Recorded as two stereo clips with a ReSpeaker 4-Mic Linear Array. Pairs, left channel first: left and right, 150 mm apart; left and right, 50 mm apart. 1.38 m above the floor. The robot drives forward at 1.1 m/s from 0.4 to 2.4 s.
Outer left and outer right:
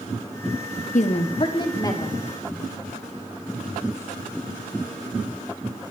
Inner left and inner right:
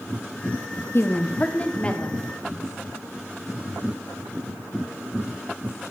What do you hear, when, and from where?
0.9 s a woman speaking: 60° left (ahead or behind), 0.8 m; by 2.2 s 20° left (ahead or behind), 1.9 m